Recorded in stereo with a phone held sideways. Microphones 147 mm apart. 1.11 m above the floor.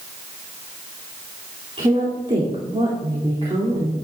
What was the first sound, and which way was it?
A woman speaking, 40° right (ahead or behind).